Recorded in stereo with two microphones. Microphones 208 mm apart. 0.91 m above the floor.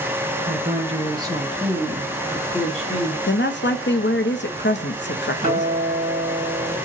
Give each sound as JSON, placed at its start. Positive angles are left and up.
{"t": 0.5, "sound": "a woman speaking", "side_deg": -45, "distance_m": 0.8}
{"t": 3.3, "sound": "a woman speaking", "side_deg": 60, "distance_m": 0.5}
{"t": 5.4, "sound": "a guitar", "side_deg": -40, "distance_m": 1.4}